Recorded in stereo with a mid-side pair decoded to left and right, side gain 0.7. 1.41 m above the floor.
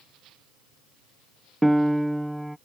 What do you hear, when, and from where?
1.6 s a piano: straight ahead